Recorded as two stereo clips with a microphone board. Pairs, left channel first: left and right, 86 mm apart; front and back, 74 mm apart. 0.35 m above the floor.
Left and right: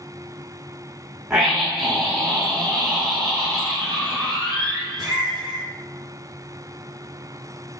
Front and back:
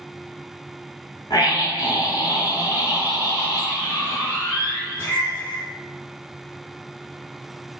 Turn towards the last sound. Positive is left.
turn(degrees=-65)